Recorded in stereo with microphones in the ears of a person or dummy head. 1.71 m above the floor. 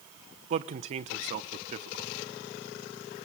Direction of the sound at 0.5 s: 40° right (ahead or behind).